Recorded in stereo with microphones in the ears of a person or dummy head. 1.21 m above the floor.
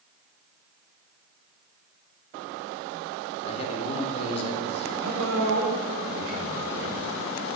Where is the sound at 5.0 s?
75° right (ahead or behind), 5 m.